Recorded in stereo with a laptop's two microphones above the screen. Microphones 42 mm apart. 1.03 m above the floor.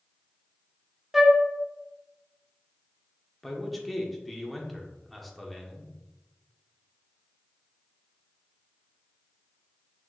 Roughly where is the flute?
Centre.